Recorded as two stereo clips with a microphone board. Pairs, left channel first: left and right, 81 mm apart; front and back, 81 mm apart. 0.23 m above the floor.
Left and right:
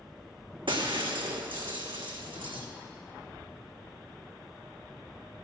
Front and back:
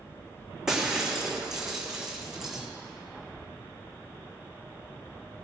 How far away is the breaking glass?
About 1.5 m.